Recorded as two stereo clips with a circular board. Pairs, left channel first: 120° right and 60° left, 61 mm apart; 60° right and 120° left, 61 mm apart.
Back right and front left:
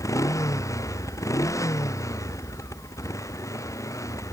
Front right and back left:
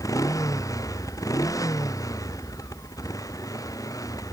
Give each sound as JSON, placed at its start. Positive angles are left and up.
{"t": 0.0, "sound": "a motorcycle", "azimuth_deg": -85}